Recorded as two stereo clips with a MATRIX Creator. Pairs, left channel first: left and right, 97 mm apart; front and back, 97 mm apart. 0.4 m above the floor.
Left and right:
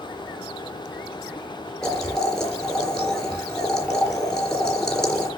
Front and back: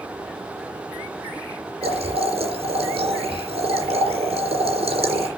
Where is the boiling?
175° left, 3.5 m.